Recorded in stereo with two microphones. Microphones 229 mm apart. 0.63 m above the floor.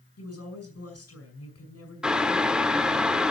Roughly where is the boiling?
Centre.